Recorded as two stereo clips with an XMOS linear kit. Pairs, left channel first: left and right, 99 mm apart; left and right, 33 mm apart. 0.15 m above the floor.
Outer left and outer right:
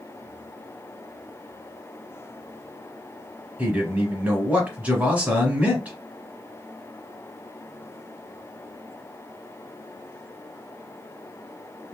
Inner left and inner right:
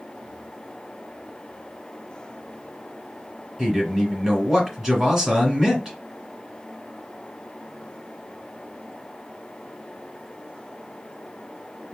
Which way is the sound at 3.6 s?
15° right (ahead or behind).